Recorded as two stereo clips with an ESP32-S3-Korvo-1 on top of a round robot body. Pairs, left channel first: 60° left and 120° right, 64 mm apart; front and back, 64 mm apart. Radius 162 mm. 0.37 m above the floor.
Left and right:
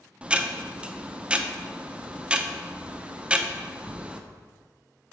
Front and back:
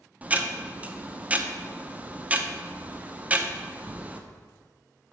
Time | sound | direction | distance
0.2 | ticking | 165° right | 0.9 m